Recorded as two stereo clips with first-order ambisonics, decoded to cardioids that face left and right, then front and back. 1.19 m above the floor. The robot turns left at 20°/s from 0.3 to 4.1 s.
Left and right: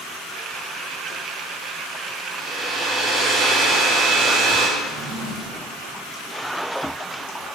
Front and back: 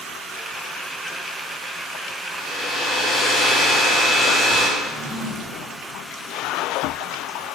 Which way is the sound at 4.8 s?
75° right.